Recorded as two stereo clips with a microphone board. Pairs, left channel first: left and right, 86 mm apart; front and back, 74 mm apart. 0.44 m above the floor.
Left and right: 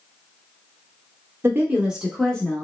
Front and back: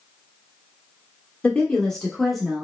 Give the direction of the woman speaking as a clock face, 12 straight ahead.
2 o'clock.